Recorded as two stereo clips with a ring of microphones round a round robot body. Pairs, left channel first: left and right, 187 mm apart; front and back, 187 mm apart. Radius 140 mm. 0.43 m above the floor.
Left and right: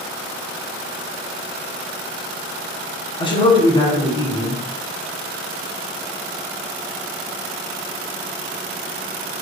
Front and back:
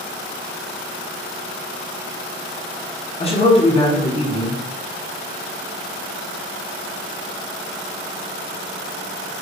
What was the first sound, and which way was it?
A man speaking, 40° left.